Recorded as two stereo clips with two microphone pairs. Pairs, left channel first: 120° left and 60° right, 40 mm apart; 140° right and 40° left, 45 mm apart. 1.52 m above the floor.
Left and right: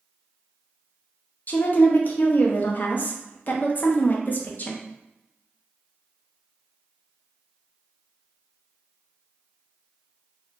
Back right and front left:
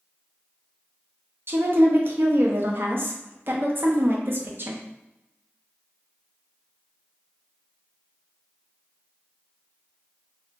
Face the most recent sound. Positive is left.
turn(degrees=70)